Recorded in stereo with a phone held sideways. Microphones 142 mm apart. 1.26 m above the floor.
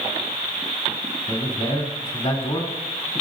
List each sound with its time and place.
1.3 s a man speaking: 55° left (ahead or behind), 2.5 m